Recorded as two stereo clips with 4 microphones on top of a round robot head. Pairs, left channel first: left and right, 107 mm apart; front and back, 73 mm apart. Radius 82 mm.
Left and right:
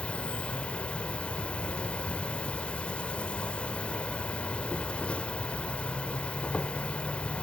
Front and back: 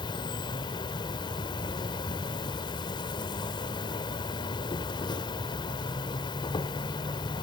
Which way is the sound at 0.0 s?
10° left.